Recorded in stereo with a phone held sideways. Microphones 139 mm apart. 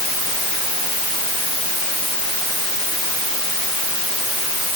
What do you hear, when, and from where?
Only background noise.